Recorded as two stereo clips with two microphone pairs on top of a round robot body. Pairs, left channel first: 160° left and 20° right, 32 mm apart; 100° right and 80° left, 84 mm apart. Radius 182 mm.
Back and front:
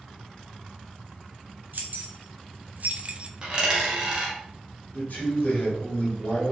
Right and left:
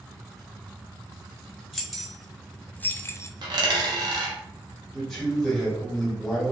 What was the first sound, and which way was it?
Keys jangling, 5° right.